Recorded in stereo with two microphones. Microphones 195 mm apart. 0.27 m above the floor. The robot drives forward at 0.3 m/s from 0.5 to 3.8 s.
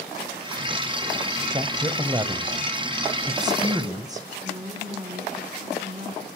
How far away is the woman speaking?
About 2.0 m.